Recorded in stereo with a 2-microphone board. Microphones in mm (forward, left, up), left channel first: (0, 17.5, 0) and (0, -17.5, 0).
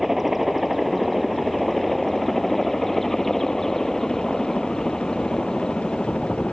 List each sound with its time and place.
0.0 s a helicopter: 5° right (ahead or behind); by 6.5 s 20° left (ahead or behind)